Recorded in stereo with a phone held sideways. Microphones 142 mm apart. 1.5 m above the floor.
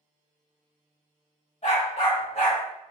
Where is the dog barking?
55° left (ahead or behind), 2.0 m; by 2.6 s 50° left (ahead or behind), 2 m.